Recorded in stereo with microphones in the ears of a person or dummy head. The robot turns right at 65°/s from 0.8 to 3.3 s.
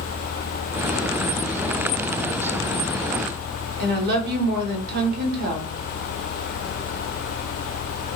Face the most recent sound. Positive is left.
turn(degrees=-50)  # may be behind; listen again after turning